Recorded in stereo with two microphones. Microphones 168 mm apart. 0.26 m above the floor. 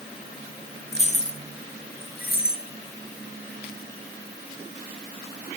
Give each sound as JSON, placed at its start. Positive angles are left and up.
{"t": 0.9, "sound": "keys jangling", "side_deg": 35, "distance_m": 2.5}